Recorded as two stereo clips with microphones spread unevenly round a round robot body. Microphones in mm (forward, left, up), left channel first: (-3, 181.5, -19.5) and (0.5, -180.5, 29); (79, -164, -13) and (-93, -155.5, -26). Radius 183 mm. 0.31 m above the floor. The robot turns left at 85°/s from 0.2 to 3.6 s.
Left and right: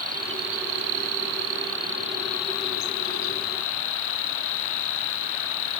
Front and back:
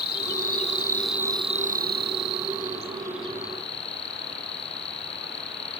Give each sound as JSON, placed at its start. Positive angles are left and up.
{"t": 0.0, "sound": "an insect", "azimuth_deg": -20}